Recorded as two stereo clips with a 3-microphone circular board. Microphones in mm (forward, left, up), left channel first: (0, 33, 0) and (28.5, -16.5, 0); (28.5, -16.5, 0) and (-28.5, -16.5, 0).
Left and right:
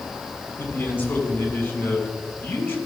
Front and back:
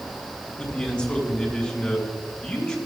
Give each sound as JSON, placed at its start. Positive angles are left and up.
{"t": 0.6, "sound": "a man speaking", "azimuth_deg": 75, "distance_m": 3.0}